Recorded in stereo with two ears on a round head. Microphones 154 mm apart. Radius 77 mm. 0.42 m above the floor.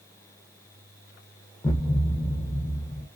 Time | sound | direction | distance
1.6 | a thud | 15° left (ahead or behind) | 0.5 m